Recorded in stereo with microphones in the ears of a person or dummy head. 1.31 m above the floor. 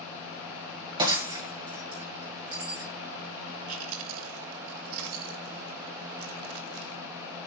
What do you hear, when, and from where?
1.0 s breaking glass: 25° right (ahead or behind), 2 m
3.7 s chewing: 80° right, 2.5 m